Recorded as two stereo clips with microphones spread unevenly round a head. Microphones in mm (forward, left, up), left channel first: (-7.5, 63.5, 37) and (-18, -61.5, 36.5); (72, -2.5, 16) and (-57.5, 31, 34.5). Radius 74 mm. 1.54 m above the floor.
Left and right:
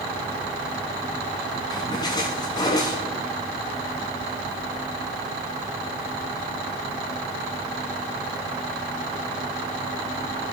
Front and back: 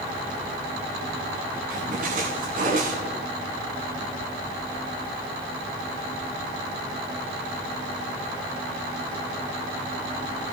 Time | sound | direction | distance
1.7 | a splash | 145° left | 8 m